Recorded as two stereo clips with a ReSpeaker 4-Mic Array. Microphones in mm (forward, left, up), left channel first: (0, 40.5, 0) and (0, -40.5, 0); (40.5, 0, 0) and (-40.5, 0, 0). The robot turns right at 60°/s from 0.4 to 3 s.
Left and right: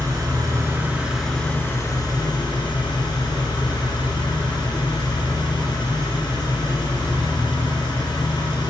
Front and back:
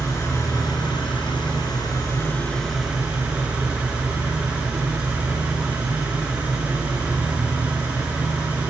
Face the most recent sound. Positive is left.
turn(degrees=105)